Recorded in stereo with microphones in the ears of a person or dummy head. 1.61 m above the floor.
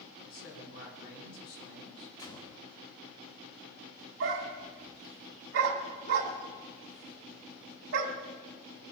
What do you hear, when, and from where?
0.2 s a man speaking: 85° left, 6.5 m
2.2 s a gunshot: 15° left (ahead or behind), 1.7 m
4.2 s a dog barking: 65° right (ahead or behind), 3 m